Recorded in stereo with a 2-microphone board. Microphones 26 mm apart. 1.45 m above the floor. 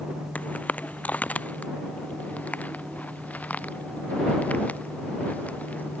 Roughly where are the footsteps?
Left.